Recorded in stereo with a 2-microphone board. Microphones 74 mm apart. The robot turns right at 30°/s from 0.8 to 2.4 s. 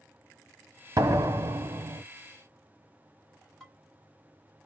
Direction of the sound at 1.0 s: 125° right.